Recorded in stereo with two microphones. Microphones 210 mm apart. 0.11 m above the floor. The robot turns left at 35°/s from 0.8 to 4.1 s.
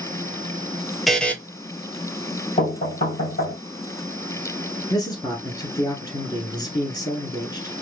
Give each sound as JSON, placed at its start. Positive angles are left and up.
{"t": 1.1, "sound": "a buzzer", "side_deg": 0, "distance_m": 0.7}
{"t": 2.6, "sound": "knocking", "azimuth_deg": 145, "distance_m": 2.0}
{"t": 4.9, "sound": "a man speaking", "side_deg": 20, "distance_m": 1.1}